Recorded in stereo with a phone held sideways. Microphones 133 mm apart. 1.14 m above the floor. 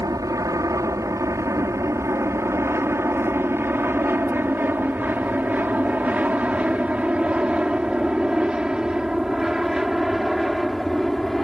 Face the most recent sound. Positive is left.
turn(degrees=0)  # may be behind; listen again after turning